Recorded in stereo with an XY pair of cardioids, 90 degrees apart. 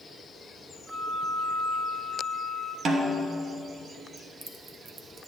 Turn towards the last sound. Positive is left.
turn(degrees=-55)